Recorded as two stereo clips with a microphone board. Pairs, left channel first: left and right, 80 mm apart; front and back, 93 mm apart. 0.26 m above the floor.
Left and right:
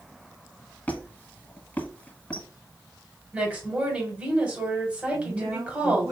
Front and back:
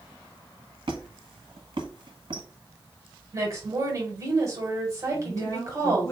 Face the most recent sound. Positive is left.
turn(degrees=-50)